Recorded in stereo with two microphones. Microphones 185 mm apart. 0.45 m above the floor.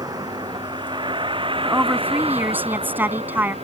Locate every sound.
0.0 s a vehicle: 20° right (ahead or behind); by 3.6 s 30° right (ahead or behind)
1.6 s a woman speaking: 10° right (ahead or behind)